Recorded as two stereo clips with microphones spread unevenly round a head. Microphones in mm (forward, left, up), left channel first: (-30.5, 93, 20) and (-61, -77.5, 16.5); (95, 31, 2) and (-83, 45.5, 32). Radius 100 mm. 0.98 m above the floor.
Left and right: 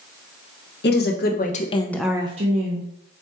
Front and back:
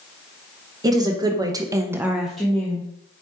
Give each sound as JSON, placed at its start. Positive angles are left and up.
{"t": 0.8, "sound": "a woman speaking", "azimuth_deg": 100, "distance_m": 1.2}